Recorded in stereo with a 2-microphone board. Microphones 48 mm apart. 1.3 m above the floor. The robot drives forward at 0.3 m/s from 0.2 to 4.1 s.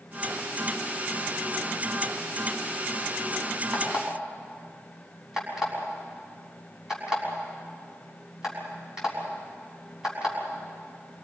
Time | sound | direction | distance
3.7 | an alarm clock | 15° right (ahead or behind) | 6.5 m